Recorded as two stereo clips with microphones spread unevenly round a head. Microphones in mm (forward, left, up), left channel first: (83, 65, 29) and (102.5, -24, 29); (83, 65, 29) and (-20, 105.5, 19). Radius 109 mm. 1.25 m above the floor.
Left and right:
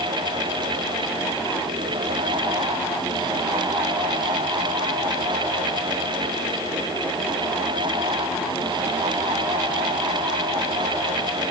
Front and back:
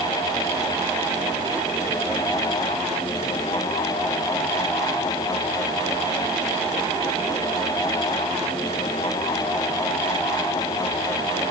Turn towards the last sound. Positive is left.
No sound to turn to.